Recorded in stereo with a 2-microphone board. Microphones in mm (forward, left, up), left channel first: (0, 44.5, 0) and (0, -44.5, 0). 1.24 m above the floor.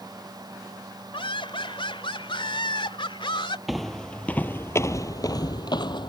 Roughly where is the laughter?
Left.